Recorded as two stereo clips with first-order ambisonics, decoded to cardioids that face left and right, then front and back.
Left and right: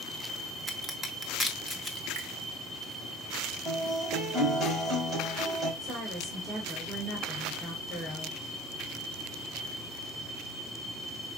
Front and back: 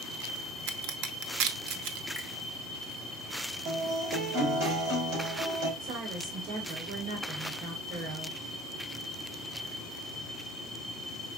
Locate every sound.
0.7 s a crack: 170° right, 0.8 m
2.1 s a finger snap: 95° right, 1.4 m
3.6 s a guitar: 155° right, 3.5 m
5.8 s a woman speaking: 175° right, 1.7 m